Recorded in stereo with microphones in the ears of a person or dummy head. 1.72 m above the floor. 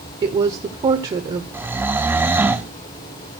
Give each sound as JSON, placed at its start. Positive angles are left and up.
{"t": 0.2, "sound": "a woman speaking", "side_deg": -20, "distance_m": 0.8}
{"t": 1.5, "sound": "snoring", "side_deg": -5, "distance_m": 0.6}